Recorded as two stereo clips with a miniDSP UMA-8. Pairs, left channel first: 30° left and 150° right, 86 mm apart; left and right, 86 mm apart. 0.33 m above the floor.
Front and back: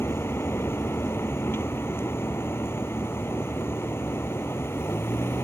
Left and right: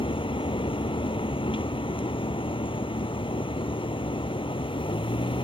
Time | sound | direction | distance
0.0 | a vehicle | 90° left | ?